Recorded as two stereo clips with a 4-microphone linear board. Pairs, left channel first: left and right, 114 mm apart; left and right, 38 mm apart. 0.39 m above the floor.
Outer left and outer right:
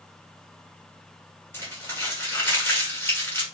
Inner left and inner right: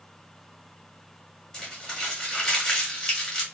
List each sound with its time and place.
1.5 s crumpling: 20° left (ahead or behind), 1.6 m